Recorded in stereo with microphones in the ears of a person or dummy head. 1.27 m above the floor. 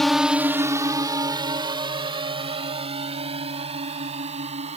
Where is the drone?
5° left (ahead or behind); by 4.8 s 35° right (ahead or behind).